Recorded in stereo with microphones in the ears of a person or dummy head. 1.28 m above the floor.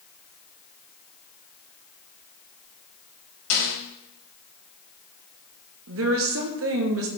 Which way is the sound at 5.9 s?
70° right (ahead or behind).